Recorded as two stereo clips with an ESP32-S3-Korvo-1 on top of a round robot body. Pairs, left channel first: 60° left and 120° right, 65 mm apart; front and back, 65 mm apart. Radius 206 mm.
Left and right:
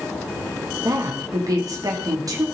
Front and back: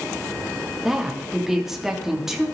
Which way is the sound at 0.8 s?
95° right.